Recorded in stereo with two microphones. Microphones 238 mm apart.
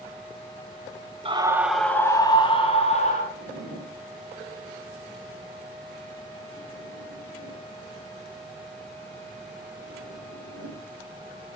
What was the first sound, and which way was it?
A scream, 25° right (ahead or behind).